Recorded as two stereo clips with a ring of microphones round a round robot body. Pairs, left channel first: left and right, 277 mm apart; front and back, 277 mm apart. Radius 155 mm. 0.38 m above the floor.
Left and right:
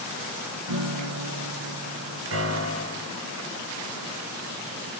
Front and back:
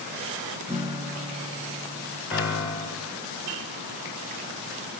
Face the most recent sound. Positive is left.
turn(degrees=-100)